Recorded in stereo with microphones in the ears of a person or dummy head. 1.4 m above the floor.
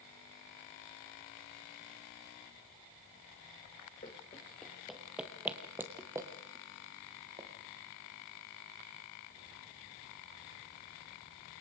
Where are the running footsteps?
20° left (ahead or behind), 1.4 m; by 7.5 s 20° right (ahead or behind), 3 m.